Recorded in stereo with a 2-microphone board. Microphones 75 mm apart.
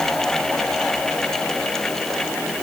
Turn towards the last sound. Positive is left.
No sound to turn to.